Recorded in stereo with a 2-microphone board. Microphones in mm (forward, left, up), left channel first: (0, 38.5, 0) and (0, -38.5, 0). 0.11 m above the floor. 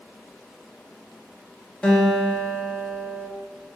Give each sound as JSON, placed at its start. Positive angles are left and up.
{"t": 1.8, "sound": "a guitar", "side_deg": 15, "distance_m": 0.9}